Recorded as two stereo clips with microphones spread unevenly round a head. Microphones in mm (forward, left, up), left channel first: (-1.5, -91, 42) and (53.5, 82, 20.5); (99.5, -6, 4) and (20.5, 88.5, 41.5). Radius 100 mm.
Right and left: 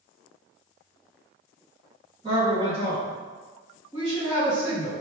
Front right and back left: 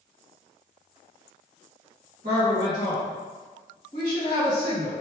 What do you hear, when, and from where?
2.2 s a woman speaking: 145° left, 1.9 m